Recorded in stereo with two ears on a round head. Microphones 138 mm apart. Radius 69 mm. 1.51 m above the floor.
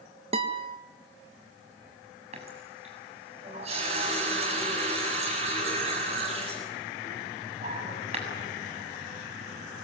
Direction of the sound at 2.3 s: 40° right (ahead or behind).